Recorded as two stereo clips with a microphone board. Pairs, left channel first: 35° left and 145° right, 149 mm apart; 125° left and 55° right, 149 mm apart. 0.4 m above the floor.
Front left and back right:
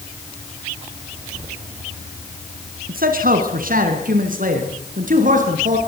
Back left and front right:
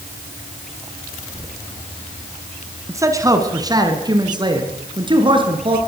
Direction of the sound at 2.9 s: 125° right.